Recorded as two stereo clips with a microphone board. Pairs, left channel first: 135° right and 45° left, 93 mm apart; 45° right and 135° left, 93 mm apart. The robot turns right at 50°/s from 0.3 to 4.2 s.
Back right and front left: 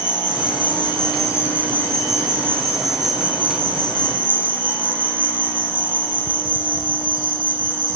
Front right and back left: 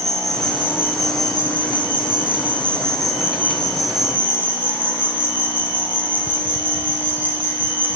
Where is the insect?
130° right, 5.5 m; by 8.0 s 65° left, 5.5 m.